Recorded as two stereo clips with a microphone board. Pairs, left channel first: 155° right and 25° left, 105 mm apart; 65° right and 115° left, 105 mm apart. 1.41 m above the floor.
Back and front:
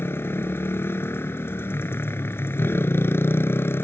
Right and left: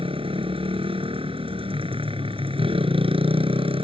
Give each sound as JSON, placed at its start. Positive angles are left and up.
{"t": 0.0, "sound": "a motorcycle", "azimuth_deg": 135}